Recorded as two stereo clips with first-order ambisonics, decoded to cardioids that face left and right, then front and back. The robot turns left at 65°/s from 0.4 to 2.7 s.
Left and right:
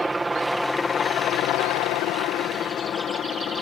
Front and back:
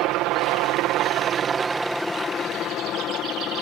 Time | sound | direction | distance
0.0 | a helicopter | 170° right | ?